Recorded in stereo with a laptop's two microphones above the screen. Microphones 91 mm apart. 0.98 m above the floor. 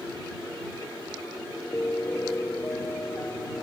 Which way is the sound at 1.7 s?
25° left (ahead or behind).